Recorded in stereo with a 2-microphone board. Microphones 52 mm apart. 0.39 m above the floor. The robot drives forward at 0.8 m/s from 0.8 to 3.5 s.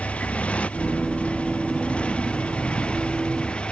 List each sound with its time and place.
0.0 s a motorcycle: 25° left (ahead or behind); by 3.7 s 20° left (ahead or behind)